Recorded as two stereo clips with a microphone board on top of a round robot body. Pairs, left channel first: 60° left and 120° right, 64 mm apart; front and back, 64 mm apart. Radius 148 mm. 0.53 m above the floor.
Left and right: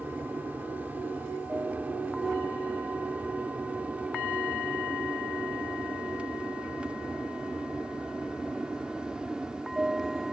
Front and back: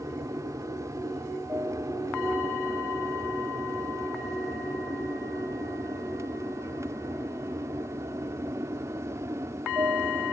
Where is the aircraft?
175° right; by 10.3 s 165° left.